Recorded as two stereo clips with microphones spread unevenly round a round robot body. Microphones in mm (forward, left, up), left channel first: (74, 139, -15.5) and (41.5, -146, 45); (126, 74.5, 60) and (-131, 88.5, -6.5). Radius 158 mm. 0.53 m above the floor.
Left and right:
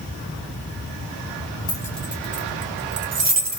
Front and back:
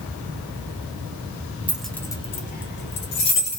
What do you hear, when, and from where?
1.7 s keys jangling: 125° left, 0.6 m; by 3.6 s 50° right, 0.9 m